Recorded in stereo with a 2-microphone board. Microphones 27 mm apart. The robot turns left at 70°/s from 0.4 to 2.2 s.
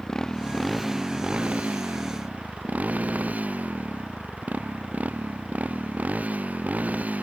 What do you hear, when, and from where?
0.0 s a motorcycle: 25° left; by 7.2 s 100° right